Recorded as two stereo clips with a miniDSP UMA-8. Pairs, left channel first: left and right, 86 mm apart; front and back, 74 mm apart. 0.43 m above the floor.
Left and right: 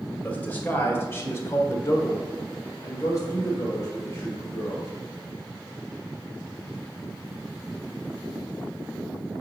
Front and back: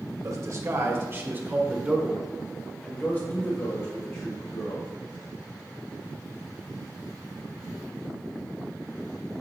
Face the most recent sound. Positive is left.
turn(degrees=30)